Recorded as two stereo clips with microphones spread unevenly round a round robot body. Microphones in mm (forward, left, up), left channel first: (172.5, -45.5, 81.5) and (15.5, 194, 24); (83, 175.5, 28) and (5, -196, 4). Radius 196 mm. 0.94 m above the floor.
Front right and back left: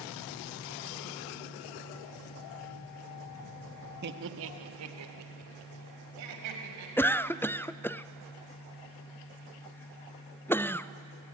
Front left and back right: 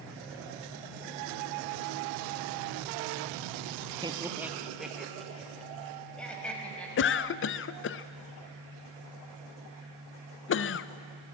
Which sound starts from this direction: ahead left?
A cough, at 7.0 s.